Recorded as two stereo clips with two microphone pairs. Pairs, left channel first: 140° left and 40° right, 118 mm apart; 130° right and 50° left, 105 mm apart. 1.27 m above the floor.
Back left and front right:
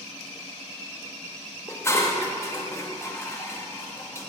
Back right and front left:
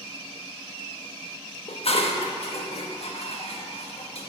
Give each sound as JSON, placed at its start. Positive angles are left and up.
{"t": 1.7, "sound": "dishes clattering", "azimuth_deg": -150, "distance_m": 1.3}